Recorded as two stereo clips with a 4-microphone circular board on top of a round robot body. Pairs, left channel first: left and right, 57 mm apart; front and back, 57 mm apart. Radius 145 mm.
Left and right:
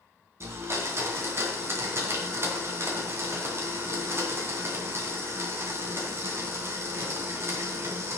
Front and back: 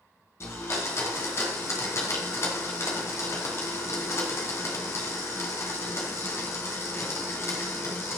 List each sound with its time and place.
0.4 s a blender: 45° right, 2.5 m